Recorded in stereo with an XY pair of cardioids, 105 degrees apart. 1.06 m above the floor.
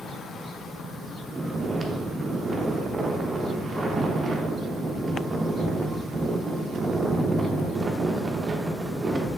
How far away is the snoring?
About 0.5 m.